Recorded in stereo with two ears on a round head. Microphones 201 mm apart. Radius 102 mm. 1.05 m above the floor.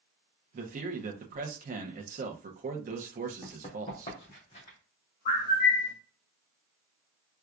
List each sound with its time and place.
0.5 s a man speaking: 40° right (ahead or behind), 0.7 m
3.4 s running footsteps: 30° left (ahead or behind), 1.9 m; by 4.8 s 35° left (ahead or behind), 2.5 m
5.2 s a bird: 50° left (ahead or behind), 2.5 m